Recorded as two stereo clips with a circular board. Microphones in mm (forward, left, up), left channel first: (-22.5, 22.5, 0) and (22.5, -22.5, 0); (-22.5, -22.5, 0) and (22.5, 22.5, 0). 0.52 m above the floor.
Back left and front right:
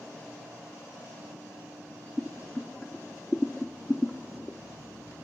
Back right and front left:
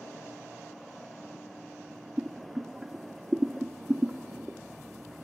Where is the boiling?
100° left, 0.7 m.